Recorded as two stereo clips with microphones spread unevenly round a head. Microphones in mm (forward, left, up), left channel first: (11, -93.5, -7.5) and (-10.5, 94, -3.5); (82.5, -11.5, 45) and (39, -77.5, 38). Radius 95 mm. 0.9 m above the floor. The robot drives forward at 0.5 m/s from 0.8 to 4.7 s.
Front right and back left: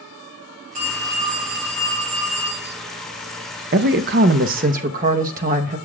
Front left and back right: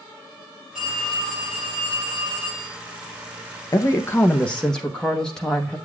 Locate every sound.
0.8 s a phone ringing: 150° left, 4.5 m; by 2.8 s 155° left, 5 m
3.7 s a woman speaking: 95° left, 0.6 m; by 5.8 s 140° left, 0.8 m